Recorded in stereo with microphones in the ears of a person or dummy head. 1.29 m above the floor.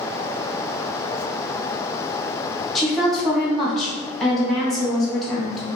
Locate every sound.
2.8 s a woman speaking: centre (ahead or behind), 1.2 m